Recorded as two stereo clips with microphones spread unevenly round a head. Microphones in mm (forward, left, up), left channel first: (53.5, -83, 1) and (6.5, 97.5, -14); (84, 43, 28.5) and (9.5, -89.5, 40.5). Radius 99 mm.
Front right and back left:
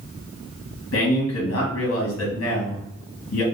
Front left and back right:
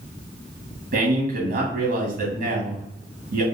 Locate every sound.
0.9 s a man speaking: 100° right, 1.0 m